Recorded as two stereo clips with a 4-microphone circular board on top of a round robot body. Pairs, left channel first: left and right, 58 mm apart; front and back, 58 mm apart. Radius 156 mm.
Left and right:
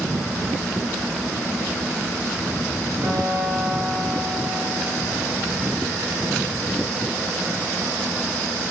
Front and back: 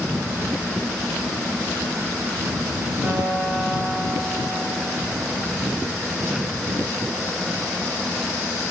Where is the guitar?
115° right, 6 m.